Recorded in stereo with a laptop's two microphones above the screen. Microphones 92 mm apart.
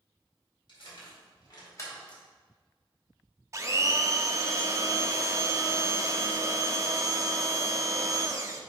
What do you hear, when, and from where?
0.7 s keys jangling: 70° left (ahead or behind), 2.5 m; by 2.2 s 5° left (ahead or behind), 1.0 m
3.5 s a blender: 35° right (ahead or behind), 0.5 m